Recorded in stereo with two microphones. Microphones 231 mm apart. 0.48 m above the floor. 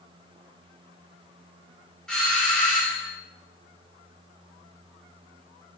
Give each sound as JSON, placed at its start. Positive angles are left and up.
{"t": 2.1, "sound": "a doorbell", "side_deg": 5, "distance_m": 1.1}